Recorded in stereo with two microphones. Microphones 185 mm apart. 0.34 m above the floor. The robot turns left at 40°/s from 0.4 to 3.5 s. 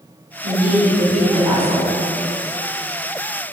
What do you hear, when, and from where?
0.4 s a woman speaking: 105° right, 1.9 m; by 1.9 s 165° right, 1.9 m